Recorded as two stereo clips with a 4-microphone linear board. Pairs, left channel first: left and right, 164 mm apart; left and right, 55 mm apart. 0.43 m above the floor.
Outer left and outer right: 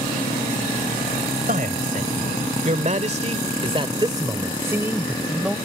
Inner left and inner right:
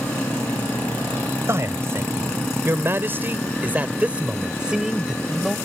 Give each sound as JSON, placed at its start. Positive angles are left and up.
{"t": 1.5, "sound": "a man speaking", "side_deg": -55}